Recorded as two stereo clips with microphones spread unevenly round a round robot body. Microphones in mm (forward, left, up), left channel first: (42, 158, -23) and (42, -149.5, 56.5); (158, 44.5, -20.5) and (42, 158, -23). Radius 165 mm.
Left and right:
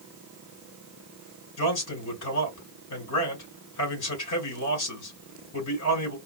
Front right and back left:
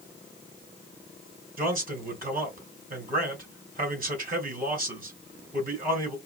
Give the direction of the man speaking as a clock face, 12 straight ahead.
9 o'clock.